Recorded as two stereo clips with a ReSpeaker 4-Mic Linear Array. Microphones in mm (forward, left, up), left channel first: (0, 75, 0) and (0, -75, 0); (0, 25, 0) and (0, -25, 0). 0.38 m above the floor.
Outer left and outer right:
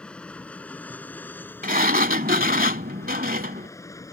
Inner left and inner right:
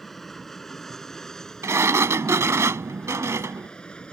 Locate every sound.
0.0 s an aircraft: 5° left (ahead or behind); by 4.1 s 20° left (ahead or behind)
1.6 s a sliding door: 75° right (ahead or behind)